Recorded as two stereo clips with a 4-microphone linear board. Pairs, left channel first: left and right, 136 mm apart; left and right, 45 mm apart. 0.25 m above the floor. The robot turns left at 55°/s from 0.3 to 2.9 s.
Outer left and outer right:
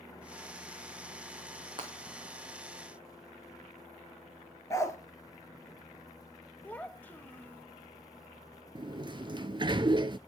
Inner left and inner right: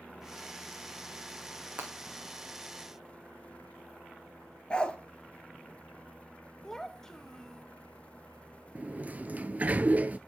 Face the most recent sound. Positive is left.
turn(degrees=-35)  # may be behind; listen again after turning